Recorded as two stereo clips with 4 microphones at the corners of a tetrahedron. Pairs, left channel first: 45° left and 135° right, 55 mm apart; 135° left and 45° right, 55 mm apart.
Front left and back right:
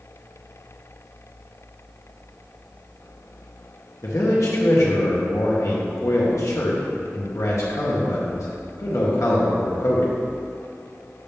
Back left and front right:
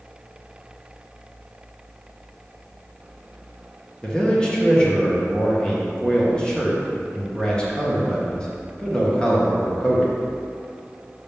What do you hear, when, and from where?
4.0 s a man speaking: 60° left, 1.7 m